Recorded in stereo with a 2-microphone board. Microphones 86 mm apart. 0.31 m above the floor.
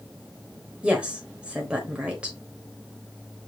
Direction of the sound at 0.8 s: 15° right (ahead or behind).